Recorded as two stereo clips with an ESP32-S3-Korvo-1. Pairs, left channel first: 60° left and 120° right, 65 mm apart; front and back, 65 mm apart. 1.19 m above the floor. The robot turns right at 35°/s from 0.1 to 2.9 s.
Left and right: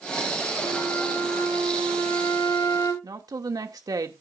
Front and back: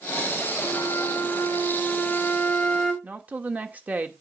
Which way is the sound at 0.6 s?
15° left.